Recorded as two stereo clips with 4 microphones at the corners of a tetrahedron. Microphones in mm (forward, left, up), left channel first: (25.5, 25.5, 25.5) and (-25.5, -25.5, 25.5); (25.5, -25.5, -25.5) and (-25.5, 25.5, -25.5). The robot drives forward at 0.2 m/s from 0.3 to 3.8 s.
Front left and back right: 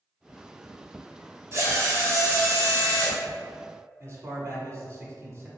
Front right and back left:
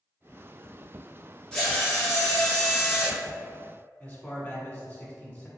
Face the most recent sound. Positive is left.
turn(degrees=-110)